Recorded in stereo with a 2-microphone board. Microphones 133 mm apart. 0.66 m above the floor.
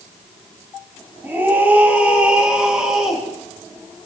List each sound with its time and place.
1.2 s a scream: 15° right (ahead or behind), 6 m; by 3.2 s 5° right (ahead or behind), 6 m